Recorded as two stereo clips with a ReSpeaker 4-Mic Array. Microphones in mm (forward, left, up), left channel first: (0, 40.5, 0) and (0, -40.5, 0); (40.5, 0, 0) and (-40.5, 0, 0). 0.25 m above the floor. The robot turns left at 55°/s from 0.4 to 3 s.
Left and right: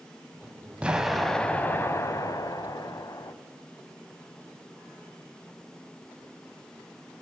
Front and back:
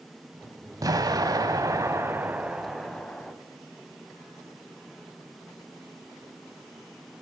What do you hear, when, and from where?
0.8 s an explosion: 160° right, 0.8 m; by 3.3 s 80° left, 0.8 m